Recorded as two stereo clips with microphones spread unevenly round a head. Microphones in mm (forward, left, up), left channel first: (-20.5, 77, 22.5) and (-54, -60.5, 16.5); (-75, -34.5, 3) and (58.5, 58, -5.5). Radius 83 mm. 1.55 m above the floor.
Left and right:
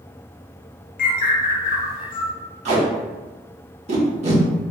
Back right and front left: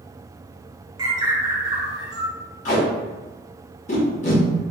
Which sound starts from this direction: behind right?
Tape being pulled, at 2.6 s.